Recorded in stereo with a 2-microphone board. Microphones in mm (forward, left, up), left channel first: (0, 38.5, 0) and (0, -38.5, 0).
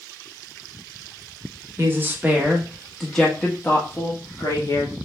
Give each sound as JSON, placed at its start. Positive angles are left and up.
{"t": 1.8, "sound": "a woman speaking", "side_deg": -30, "distance_m": 1.1}